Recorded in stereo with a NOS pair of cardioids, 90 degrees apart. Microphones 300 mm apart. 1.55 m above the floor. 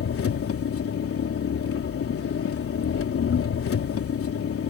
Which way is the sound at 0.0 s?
50° left.